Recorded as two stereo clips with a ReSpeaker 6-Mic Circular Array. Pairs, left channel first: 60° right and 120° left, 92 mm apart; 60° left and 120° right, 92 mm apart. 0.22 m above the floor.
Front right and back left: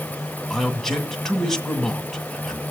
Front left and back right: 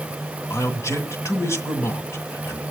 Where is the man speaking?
25° left, 2.0 m.